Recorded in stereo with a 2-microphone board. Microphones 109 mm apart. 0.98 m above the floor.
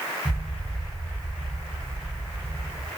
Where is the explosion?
30° left (ahead or behind), 1.1 m.